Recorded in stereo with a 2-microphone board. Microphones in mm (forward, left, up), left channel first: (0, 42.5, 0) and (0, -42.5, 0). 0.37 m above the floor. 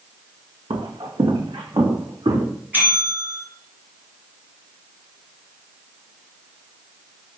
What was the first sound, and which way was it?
Footsteps, 80° right.